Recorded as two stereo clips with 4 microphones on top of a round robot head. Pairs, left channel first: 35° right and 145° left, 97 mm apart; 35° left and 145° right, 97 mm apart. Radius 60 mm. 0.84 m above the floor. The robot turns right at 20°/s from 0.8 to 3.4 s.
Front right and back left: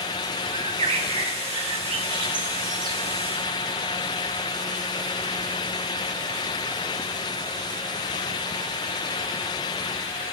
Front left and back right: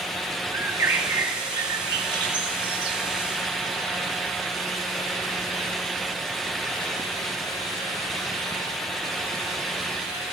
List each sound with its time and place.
0.5 s a bird: 150° left, 1.1 m; by 3.0 s 170° right, 1.1 m